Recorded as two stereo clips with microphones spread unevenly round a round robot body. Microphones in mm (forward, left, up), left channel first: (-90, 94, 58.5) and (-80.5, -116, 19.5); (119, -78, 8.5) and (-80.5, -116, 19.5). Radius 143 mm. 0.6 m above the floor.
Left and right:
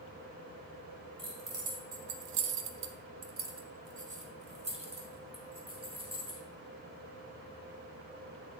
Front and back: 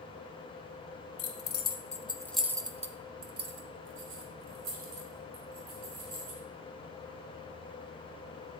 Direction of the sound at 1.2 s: 20° right.